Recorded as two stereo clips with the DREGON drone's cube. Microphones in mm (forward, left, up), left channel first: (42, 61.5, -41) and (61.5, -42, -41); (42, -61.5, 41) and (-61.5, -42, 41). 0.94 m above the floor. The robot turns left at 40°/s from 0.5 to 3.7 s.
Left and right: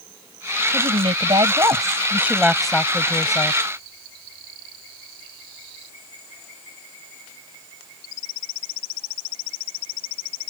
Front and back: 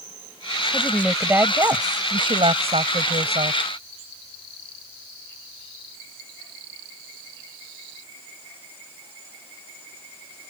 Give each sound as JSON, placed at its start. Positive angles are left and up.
{"t": 0.7, "sound": "a woman speaking", "azimuth_deg": -95}